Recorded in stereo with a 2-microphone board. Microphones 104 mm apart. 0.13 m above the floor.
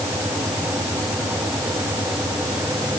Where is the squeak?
No squeak in this recording.